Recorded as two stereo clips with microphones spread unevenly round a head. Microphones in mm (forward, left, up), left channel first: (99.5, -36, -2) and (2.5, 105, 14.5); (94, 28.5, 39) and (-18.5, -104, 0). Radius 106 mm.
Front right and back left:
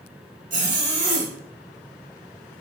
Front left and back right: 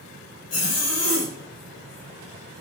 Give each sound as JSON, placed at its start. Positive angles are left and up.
{"t": 0.5, "sound": "a zipper", "azimuth_deg": 85, "distance_m": 1.9}